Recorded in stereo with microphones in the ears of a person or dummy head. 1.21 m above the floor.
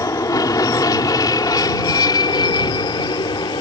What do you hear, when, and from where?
0.0 s an aircraft: 20° left (ahead or behind); by 3.6 s 25° left (ahead or behind)